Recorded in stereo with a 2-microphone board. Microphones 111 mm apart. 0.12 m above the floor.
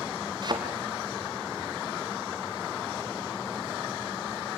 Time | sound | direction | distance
0.4 | a thud | 45° right (ahead or behind) | 3.5 m